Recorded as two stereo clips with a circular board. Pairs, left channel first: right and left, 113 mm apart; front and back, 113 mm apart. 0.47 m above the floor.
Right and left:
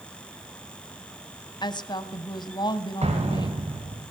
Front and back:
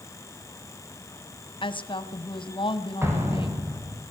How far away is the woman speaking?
About 3 m.